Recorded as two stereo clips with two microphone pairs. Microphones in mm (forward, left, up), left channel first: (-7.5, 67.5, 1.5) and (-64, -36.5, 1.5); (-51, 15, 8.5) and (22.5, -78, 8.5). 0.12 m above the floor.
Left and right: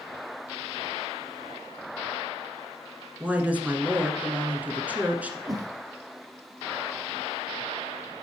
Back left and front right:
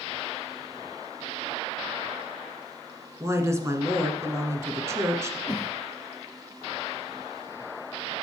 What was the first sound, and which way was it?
A woman speaking, 60° right.